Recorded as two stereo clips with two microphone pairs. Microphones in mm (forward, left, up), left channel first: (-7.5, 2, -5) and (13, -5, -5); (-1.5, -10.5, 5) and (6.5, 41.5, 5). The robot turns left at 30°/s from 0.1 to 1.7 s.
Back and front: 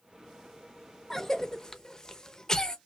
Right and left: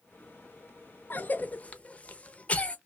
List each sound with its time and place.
1.1 s a cough: 130° right, 0.6 m; by 2.8 s 150° right, 0.6 m